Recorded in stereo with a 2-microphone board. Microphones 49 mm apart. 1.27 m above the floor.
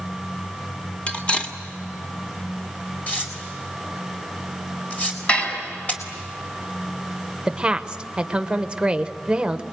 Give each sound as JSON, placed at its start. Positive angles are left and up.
{"t": 1.1, "sound": "cutlery clinking", "side_deg": 25, "distance_m": 1.9}
{"t": 3.1, "sound": "tearing paper", "side_deg": 30, "distance_m": 4.0}
{"t": 5.3, "sound": "dishes clattering", "side_deg": 25, "distance_m": 5.5}
{"t": 7.5, "sound": "a woman speaking", "side_deg": -20, "distance_m": 1.1}